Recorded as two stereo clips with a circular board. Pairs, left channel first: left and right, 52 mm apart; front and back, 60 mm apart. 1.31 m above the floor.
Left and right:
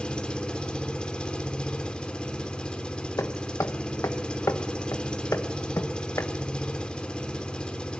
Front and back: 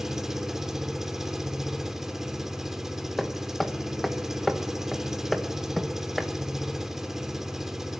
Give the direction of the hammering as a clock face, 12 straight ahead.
9 o'clock.